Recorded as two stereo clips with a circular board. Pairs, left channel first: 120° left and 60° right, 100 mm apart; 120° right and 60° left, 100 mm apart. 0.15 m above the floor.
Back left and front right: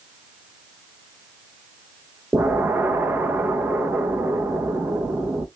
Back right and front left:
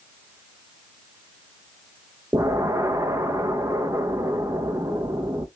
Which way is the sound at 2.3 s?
5° left.